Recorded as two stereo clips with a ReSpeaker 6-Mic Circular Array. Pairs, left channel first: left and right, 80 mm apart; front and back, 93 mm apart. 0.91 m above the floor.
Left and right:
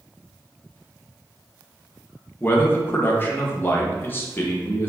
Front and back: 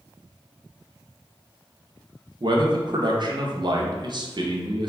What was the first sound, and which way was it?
A man speaking, 150° left.